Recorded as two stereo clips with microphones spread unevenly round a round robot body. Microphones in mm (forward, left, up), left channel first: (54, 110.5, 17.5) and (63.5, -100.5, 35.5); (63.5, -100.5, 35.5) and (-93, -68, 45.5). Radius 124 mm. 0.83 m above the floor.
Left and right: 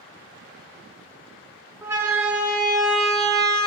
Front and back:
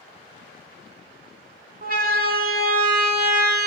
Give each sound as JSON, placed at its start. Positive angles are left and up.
{"t": 1.8, "sound": "a siren", "azimuth_deg": -165, "distance_m": 2.5}